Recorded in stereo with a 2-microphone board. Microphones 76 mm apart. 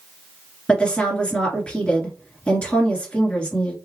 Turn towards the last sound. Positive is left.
turn(degrees=15)  # may be behind; listen again after turning